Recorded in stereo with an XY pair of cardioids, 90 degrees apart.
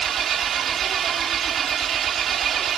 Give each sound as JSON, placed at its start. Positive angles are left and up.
{"t": 0.0, "sound": "an engine running", "azimuth_deg": -65}